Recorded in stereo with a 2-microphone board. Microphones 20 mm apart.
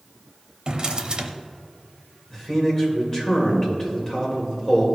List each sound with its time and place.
0.7 s a drawer: 40° right (ahead or behind), 0.7 m
2.3 s a man speaking: 20° left (ahead or behind), 2.5 m